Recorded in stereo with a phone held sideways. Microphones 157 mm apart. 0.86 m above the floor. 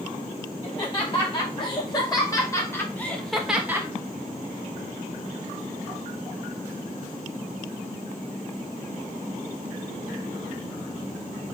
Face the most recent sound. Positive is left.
turn(degrees=-20)  # may be behind; listen again after turning